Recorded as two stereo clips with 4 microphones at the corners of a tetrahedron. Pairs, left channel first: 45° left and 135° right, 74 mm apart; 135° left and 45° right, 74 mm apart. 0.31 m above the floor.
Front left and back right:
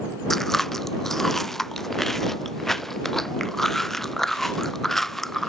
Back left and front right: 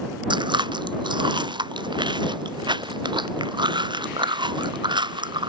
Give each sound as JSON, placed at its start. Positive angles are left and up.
{"t": 0.3, "sound": "chewing", "azimuth_deg": -40}